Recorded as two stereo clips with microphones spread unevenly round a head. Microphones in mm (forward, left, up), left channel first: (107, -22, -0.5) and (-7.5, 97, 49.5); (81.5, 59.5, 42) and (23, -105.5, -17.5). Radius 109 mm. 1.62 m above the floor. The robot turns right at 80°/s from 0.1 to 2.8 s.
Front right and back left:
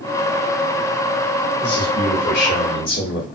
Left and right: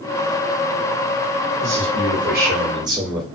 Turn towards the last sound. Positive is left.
turn(degrees=-40)